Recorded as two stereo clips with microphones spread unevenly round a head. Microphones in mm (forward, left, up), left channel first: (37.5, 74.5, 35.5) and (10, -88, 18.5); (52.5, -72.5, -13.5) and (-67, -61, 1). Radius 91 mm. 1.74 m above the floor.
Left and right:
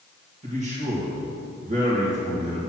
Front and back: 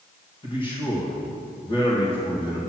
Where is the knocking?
No knocking in this recording.